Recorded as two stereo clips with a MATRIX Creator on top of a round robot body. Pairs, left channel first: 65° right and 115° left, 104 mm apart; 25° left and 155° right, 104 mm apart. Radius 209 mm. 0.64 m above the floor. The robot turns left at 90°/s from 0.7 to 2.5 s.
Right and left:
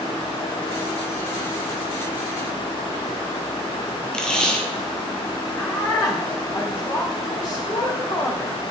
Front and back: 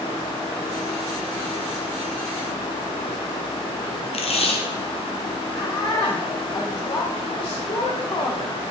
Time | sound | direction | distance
4.1 | tape being pulled | 15° left | 1.4 m
5.6 | a woman speaking | 15° right | 2.5 m